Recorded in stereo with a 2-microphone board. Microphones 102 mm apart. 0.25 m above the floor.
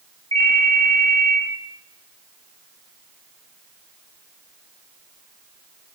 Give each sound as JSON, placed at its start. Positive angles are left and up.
{"t": 0.3, "sound": "a ringtone", "side_deg": -65, "distance_m": 0.6}